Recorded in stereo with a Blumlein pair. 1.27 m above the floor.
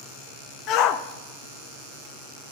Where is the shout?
35° left, 0.9 m.